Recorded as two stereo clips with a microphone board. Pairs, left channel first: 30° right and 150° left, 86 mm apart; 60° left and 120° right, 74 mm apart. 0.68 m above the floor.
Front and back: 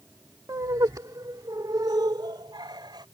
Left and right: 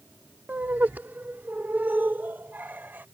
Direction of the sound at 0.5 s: Straight behind.